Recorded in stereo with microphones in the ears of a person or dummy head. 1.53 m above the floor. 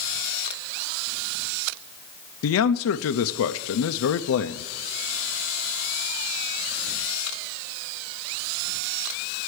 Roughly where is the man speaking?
Left.